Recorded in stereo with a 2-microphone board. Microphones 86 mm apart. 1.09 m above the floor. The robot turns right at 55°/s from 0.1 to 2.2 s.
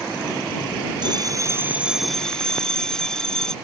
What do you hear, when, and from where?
1.0 s a bell: 55° right; by 3.5 s 5° left